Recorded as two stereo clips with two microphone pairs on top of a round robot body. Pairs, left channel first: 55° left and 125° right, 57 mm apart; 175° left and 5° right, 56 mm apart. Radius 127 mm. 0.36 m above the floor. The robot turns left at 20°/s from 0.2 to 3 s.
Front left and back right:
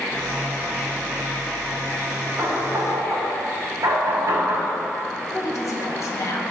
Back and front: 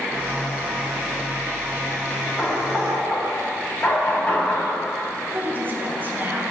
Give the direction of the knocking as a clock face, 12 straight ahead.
4 o'clock.